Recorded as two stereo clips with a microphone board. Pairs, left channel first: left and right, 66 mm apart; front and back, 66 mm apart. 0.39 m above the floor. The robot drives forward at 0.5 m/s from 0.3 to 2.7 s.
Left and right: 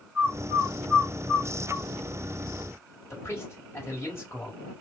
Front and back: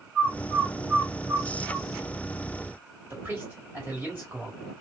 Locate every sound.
0.1 s a bird: 115° right, 1.6 m; by 1.9 s 150° right, 1.9 m
3.1 s a man speaking: 130° left, 2.0 m